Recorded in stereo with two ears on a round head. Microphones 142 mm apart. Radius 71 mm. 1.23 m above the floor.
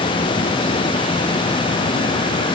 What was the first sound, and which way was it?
Only background noise.